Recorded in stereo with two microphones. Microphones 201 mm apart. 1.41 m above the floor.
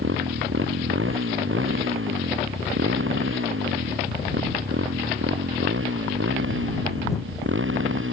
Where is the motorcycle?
90° right; by 8.1 s 85° right.